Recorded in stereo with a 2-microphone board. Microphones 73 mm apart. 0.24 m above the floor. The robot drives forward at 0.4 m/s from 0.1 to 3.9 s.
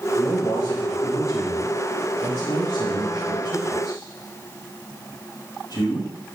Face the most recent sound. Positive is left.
turn(degrees=60)  # may be behind; listen again after turning